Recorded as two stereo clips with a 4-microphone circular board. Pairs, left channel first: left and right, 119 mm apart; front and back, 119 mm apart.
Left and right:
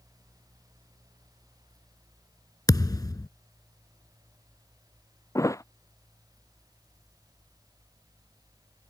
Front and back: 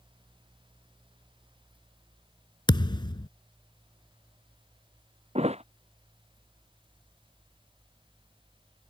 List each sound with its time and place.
2.7 s a thud: 40° left
5.3 s a thud: 155° left